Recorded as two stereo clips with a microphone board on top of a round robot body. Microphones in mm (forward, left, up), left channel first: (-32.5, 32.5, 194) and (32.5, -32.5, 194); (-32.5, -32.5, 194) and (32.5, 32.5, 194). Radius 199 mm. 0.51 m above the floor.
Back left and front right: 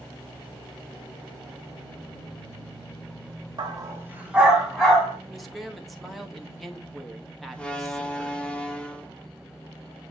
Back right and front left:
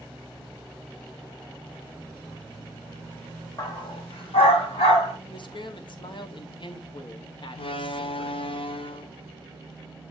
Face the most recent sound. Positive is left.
turn(degrees=-145)